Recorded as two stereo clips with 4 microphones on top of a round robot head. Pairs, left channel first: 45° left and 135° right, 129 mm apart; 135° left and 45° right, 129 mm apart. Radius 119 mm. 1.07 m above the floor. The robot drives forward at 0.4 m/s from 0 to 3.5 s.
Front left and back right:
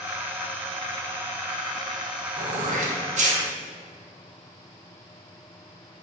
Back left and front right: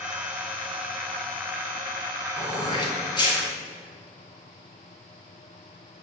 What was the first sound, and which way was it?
Throat clearing, 165° right.